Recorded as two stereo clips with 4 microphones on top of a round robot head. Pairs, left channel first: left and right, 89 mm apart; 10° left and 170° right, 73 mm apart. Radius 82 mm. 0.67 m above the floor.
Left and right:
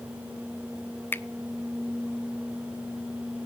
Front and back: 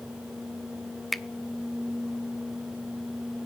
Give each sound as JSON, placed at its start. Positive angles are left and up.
{"t": 1.1, "sound": "a finger snap", "azimuth_deg": 100, "distance_m": 0.6}